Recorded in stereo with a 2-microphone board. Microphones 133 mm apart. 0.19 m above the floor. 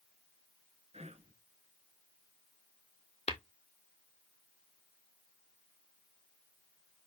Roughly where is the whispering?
Right.